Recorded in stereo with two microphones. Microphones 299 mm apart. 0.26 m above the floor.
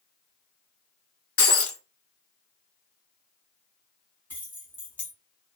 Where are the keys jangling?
5° left (ahead or behind), 1.5 m.